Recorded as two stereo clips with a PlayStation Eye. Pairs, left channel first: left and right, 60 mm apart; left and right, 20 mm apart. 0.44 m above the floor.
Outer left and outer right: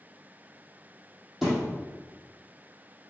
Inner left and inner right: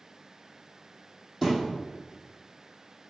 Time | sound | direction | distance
1.4 | a thud | centre (ahead or behind) | 4.5 m